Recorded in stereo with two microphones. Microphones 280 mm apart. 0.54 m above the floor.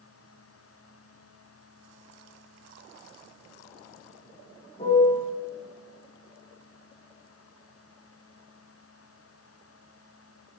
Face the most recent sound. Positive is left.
turn(degrees=25)  # may be behind; listen again after turning